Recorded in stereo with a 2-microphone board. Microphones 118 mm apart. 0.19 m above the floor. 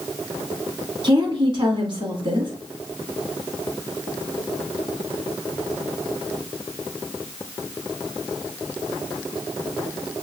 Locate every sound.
1.0 s a woman speaking: 40° right (ahead or behind), 1.3 m